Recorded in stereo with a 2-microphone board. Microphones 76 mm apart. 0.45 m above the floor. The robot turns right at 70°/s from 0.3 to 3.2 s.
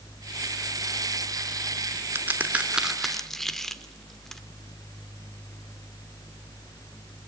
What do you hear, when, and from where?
2.1 s a crack: 30° right (ahead or behind), 1.0 m; by 4.4 s 5° left (ahead or behind), 1.0 m